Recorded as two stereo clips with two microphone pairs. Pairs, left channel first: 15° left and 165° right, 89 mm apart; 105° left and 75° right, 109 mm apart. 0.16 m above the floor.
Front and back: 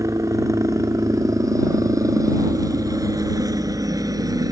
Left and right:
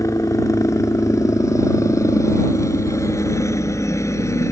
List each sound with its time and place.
0.0 s a helicopter: 155° left; by 4.5 s 160° left